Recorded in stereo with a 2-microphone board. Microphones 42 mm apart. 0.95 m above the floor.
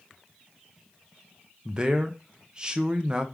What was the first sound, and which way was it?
A man speaking, 20° right (ahead or behind).